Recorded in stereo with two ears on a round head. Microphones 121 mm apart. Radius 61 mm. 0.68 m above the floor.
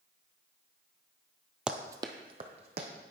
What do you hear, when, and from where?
1.7 s running footsteps: 5° right (ahead or behind), 0.7 m; by 2.9 s 50° right (ahead or behind), 1.7 m